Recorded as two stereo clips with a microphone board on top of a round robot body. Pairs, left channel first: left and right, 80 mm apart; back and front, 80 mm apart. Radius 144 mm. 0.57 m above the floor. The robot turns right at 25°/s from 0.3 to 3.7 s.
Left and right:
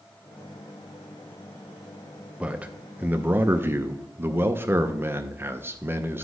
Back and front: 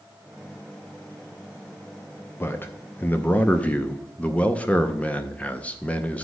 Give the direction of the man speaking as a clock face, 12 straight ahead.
5 o'clock.